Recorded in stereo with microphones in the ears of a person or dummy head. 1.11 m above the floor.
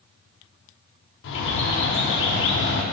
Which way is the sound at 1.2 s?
70° left (ahead or behind).